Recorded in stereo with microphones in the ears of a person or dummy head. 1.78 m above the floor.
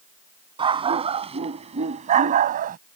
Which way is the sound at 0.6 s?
25° right (ahead or behind).